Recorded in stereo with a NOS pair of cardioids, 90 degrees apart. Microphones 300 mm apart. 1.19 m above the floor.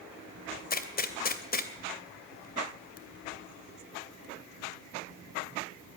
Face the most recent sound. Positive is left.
turn(degrees=30)